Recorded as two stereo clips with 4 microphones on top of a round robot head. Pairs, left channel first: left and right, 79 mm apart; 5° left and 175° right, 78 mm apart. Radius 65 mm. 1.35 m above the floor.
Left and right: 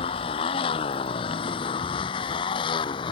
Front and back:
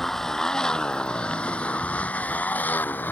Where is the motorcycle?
90° left; by 3.1 s 75° left.